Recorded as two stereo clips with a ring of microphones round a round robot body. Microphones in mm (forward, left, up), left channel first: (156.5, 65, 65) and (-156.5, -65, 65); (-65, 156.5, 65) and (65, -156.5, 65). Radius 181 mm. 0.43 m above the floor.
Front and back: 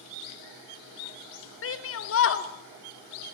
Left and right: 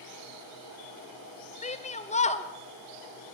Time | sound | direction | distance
1.6 | a shout | 50° left | 0.9 m